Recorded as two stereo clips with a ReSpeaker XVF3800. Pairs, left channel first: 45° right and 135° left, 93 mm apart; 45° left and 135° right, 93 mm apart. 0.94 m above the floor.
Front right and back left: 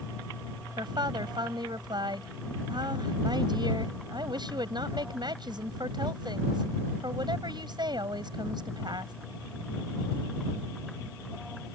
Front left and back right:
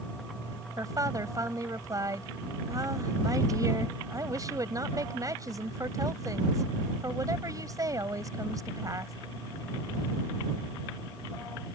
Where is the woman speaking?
175° left.